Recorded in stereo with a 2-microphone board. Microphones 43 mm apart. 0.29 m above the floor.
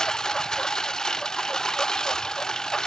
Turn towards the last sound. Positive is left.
turn(degrees=15)  # may be behind; listen again after turning